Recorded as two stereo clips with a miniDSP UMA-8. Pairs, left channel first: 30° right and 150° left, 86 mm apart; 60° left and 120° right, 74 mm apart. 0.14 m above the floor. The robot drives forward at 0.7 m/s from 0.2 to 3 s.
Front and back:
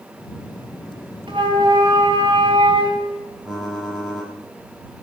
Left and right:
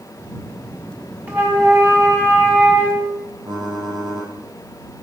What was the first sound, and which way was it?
A flute, 175° left.